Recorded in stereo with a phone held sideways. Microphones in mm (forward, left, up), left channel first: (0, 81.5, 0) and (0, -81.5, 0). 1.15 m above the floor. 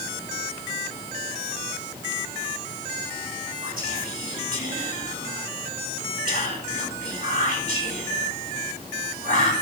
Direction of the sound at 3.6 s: 65° right (ahead or behind).